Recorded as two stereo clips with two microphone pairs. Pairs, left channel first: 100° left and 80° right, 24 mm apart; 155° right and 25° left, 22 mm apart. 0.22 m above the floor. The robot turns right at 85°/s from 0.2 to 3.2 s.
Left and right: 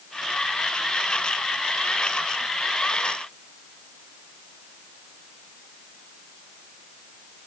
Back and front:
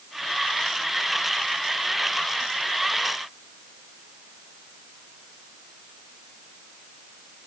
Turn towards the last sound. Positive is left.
No sound to turn to.